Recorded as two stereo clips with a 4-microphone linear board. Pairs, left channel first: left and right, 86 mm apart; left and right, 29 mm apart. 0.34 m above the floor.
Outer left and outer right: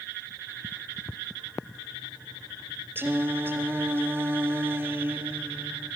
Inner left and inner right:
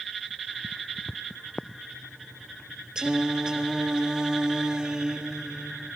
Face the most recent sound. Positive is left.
turn(degrees=-25)  # may be behind; listen again after turning